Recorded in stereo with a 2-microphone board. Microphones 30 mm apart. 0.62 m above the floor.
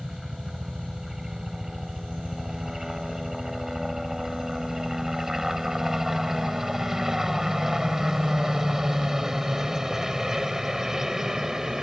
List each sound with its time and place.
0.0 s a helicopter: 5° right (ahead or behind); by 11.8 s 10° right (ahead or behind)